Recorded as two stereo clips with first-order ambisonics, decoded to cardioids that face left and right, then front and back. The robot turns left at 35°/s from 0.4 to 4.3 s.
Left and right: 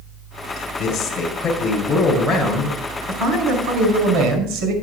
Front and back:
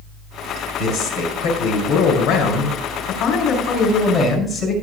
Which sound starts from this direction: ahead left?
A man speaking, at 0.6 s.